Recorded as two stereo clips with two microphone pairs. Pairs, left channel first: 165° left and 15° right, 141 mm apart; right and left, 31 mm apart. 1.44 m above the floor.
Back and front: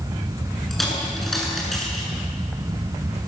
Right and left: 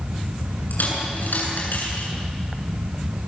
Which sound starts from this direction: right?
A dropped coin, at 0.7 s.